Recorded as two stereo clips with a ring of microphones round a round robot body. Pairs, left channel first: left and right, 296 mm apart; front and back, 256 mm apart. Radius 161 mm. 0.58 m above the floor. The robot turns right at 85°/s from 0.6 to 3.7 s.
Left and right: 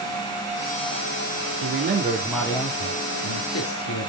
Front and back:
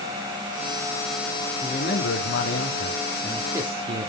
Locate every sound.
1.6 s a man speaking: 60° right, 1.7 m; by 4.1 s 115° left, 1.7 m